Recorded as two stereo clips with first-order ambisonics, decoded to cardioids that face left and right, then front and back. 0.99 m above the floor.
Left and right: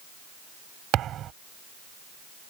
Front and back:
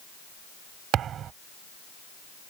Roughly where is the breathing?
No breathing in this recording.